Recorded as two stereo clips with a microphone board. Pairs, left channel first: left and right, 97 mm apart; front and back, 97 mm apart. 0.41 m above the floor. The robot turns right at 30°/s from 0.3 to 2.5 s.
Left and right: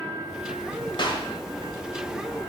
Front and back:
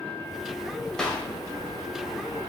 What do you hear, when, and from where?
1.0 s a clap: 80° left, 1.9 m; by 1.3 s 90° left, 1.9 m